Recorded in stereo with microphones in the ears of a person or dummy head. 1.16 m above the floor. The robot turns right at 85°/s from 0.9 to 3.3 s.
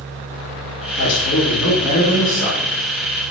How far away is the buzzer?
No buzzer in this recording.